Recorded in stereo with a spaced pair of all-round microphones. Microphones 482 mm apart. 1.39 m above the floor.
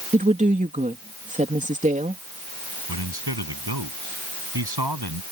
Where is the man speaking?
55° right (ahead or behind).